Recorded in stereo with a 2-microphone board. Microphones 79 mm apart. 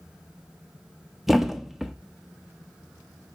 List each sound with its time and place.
1.3 s a thud: 5° right (ahead or behind), 0.6 m